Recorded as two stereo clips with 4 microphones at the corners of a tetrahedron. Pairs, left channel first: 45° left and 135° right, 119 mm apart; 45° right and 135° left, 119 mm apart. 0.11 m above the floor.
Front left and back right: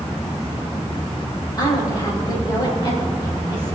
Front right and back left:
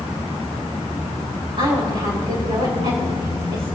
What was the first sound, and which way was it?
A woman speaking, 95° left.